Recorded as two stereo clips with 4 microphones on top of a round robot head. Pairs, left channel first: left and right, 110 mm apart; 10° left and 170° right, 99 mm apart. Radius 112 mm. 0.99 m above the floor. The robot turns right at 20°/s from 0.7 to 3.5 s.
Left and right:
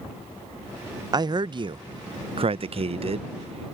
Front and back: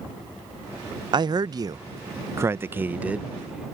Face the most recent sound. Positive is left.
turn(degrees=-90)